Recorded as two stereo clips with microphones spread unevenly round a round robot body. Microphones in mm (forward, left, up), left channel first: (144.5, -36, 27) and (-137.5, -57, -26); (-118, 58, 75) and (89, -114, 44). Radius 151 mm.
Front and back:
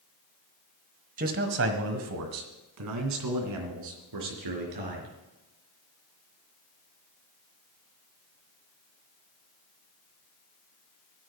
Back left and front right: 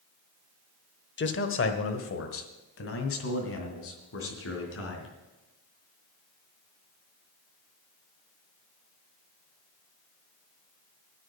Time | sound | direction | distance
1.2 | a man speaking | 165° left | 1.2 m